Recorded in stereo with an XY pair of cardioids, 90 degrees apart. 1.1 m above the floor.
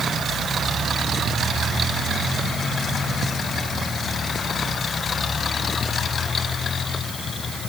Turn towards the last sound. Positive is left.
No sound to turn to.